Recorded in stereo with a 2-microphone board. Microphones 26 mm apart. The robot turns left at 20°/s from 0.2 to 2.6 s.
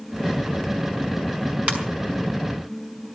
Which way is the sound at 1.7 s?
50° right (ahead or behind).